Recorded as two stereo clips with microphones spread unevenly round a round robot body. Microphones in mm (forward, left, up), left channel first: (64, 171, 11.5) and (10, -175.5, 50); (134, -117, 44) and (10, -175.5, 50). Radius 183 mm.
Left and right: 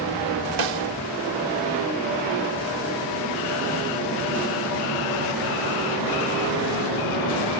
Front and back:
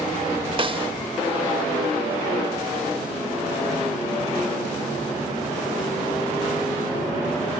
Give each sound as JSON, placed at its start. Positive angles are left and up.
{"t": 0.6, "sound": "a snare drum", "azimuth_deg": -95}